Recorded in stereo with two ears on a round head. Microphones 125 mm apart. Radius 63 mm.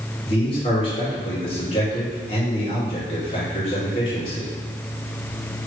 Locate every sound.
0.2 s a man speaking: 40° left (ahead or behind), 2 m